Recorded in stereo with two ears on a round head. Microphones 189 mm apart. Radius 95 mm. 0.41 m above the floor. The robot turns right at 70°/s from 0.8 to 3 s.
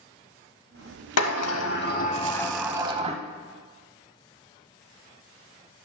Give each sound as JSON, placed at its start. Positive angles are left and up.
{"t": 1.2, "sound": "a sliding door", "azimuth_deg": 80, "distance_m": 0.6}